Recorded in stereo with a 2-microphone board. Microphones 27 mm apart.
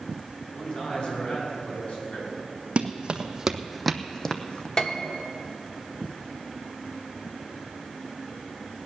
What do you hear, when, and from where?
0.5 s a man speaking: 35° left (ahead or behind), 5 m; by 2.3 s 60° left (ahead or behind), 5.5 m
2.8 s running footsteps: 45° right (ahead or behind), 1.3 m; by 4.7 s 35° left (ahead or behind), 1.3 m
4.8 s a piano: 25° left (ahead or behind), 1.1 m